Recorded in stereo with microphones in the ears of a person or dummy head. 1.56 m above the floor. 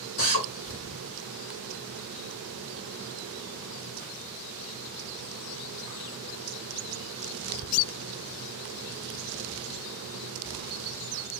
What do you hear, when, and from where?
0.2 s a drill: 60° left (ahead or behind), 2 m